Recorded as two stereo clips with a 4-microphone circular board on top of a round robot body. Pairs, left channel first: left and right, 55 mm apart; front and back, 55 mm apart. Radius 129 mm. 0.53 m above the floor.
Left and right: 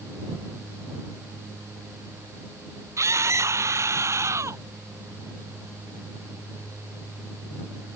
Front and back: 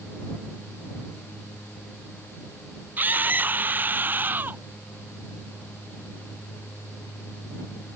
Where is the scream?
125° right.